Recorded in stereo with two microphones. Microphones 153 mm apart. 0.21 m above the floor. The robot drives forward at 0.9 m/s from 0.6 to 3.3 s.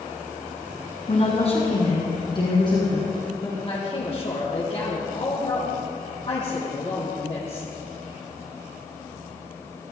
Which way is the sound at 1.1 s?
45° left (ahead or behind).